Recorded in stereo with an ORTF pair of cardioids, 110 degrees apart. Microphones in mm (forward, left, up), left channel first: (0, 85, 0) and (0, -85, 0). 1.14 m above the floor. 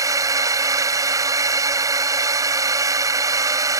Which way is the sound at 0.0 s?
20° right.